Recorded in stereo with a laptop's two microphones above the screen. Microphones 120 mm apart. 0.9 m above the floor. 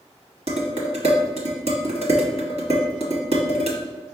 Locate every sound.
0.5 s dishes clattering: 60° right (ahead or behind), 1.0 m